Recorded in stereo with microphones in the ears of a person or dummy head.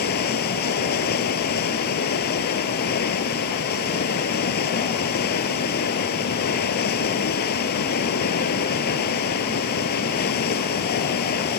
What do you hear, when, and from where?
0.0 s running water: 50° left (ahead or behind)